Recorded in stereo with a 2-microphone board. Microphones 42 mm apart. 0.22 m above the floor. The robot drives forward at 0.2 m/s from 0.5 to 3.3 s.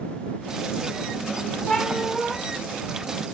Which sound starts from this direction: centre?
A cat meowing, at 1.7 s.